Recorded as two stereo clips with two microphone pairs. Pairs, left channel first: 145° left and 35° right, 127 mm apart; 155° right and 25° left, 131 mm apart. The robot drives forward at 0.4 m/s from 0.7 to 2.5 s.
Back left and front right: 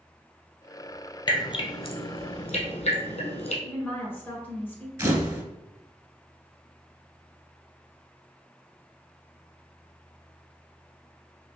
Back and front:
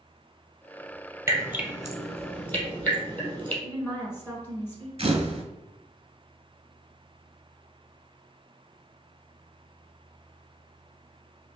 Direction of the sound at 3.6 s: Straight behind.